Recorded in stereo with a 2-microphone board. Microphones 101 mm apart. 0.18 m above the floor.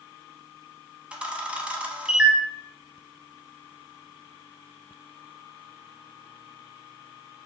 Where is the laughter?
I don't hear laughter.